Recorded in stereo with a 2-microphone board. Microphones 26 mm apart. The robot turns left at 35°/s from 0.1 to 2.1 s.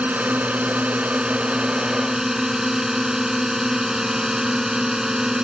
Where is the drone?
85° right; by 5.5 s 155° right.